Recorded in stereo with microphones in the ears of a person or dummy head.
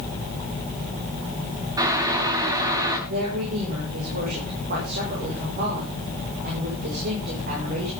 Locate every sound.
1.8 s boiling: 20° right (ahead or behind), 1.9 m
3.1 s a woman speaking: 50° right (ahead or behind), 6.5 m